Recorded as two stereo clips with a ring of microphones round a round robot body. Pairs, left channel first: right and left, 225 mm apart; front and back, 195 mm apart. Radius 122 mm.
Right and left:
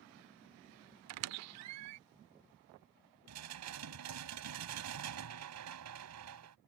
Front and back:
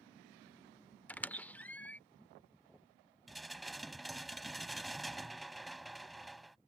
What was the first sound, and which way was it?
A squeak, 80° left.